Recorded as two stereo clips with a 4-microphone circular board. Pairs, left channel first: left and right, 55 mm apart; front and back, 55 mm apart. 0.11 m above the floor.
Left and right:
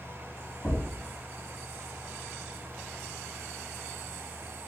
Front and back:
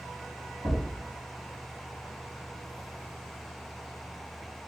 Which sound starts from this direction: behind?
A thud, at 0.6 s.